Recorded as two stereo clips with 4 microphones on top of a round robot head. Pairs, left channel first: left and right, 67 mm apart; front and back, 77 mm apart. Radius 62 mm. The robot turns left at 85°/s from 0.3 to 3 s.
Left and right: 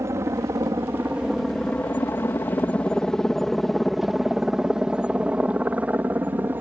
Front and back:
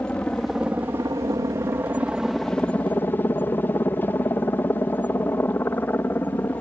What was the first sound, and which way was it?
A helicopter, 70° right.